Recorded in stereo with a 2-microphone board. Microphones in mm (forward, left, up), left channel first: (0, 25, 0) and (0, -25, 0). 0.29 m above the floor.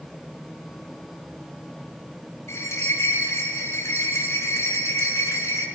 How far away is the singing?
No singing in this recording.